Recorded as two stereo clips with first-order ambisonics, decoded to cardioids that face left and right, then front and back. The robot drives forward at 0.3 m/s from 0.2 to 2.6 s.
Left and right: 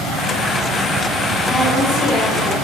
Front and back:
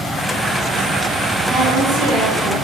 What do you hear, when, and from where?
1.5 s a woman speaking: 175° left, 0.8 m